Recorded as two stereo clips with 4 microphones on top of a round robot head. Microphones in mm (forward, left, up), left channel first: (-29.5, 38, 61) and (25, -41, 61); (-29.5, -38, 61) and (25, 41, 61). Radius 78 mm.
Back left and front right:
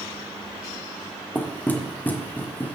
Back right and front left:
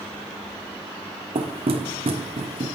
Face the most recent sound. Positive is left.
turn(degrees=50)